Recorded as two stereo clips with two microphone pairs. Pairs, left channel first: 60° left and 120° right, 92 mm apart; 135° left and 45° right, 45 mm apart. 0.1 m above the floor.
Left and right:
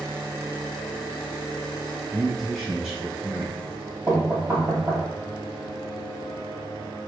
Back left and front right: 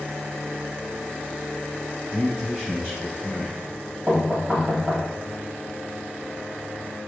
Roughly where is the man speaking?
Ahead.